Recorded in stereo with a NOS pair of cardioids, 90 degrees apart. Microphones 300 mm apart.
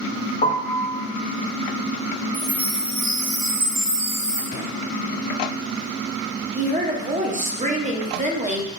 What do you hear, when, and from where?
0.4 s a piano: 30° left, 0.7 m
2.3 s a chime: 65° right, 1.4 m
4.5 s a drawer: 55° left, 1.7 m
6.5 s a woman speaking: 25° right, 0.8 m